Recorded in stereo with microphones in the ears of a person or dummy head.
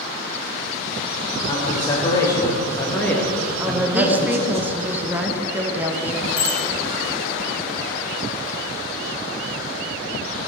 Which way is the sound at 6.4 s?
40° left (ahead or behind).